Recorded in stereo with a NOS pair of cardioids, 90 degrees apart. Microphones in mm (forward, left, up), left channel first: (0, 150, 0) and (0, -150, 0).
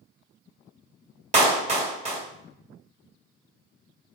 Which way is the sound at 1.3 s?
25° right.